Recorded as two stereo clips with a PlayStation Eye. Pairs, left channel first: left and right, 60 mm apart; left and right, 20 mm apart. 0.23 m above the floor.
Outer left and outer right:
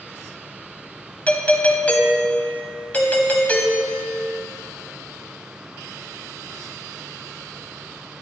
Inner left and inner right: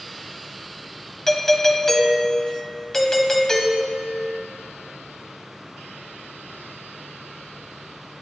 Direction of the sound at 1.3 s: 25° left (ahead or behind).